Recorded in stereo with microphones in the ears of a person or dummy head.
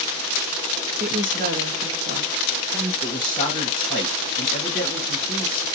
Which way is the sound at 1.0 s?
35° right (ahead or behind).